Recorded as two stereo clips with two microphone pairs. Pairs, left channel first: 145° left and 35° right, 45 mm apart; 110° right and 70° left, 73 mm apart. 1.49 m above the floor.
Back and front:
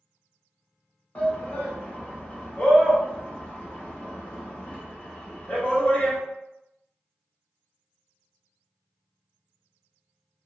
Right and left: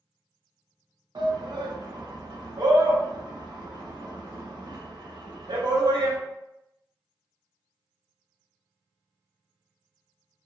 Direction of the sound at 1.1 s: 90° left.